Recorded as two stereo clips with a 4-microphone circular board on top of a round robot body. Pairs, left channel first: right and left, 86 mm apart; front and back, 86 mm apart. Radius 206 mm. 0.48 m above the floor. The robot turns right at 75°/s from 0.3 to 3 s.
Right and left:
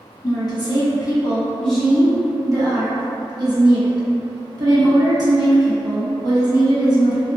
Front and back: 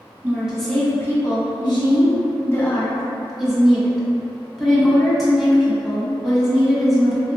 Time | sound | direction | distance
0.2 | a woman speaking | 110° right | 1.6 m